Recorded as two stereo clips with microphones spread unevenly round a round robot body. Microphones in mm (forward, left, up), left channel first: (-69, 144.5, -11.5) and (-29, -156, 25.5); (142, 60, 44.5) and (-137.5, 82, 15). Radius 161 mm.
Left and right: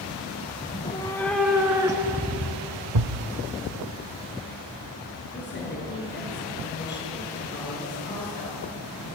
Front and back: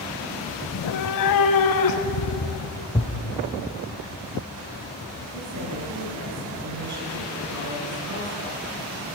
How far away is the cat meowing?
About 0.8 m.